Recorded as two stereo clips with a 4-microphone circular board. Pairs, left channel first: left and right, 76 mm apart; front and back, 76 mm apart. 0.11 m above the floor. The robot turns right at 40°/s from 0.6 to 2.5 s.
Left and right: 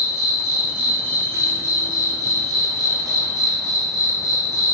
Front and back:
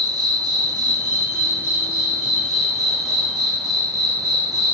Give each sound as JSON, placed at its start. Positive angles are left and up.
{"t": 0.0, "sound": "an insect", "azimuth_deg": -170, "distance_m": 1.4}